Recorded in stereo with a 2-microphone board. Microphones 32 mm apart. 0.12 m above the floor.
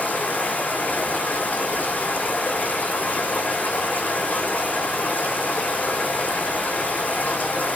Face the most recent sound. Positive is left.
turn(degrees=80)